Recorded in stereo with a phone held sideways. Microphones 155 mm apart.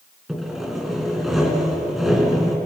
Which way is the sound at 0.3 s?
Centre (ahead or behind).